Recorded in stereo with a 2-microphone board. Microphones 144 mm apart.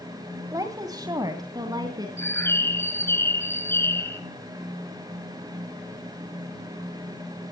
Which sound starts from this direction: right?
A woman speaking, at 0.5 s.